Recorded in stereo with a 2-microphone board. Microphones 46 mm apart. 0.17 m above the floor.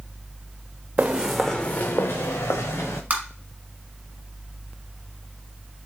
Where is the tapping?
35° right (ahead or behind), 1.6 m.